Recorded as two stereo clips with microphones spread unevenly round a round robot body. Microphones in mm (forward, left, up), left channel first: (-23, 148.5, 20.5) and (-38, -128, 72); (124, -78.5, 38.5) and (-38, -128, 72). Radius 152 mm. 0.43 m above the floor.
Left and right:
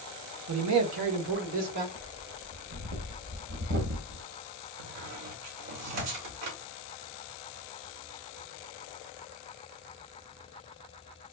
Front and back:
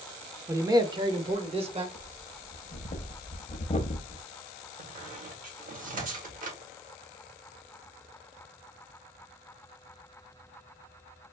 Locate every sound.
0.5 s a man speaking: 85° right, 1.0 m; by 1.9 s 105° right, 1.5 m
1.9 s breathing: 35° right, 0.7 m
4.8 s a squeak: 120° right, 1.3 m